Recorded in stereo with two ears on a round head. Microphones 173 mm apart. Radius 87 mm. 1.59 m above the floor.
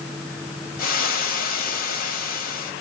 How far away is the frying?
About 1.9 m.